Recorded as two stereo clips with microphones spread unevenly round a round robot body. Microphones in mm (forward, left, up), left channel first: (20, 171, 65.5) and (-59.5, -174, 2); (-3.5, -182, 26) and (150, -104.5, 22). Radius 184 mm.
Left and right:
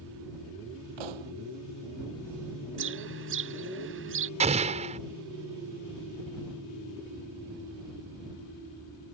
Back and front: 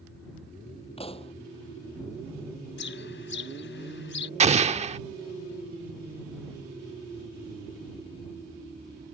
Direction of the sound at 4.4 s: 25° right.